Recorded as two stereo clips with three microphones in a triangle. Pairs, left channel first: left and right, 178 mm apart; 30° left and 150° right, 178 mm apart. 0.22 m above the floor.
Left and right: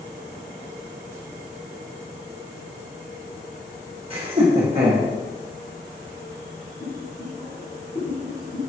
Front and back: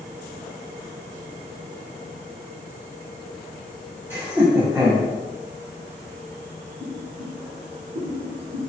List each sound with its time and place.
4.1 s laughter: 80° right, 1.6 m
6.8 s boiling: 155° left, 1.9 m